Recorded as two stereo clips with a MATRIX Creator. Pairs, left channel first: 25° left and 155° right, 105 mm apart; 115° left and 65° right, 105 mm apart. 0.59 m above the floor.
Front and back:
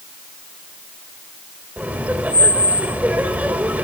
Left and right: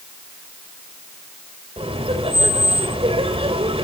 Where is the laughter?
85° right, 3 m.